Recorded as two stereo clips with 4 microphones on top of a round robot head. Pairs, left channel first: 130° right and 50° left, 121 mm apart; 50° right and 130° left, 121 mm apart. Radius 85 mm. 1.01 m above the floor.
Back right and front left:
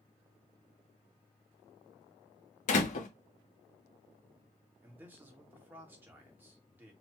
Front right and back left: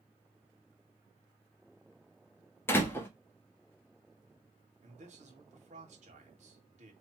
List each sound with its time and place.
2.7 s a door slam: 120° right, 1.2 m
4.8 s a man speaking: 120° left, 2.0 m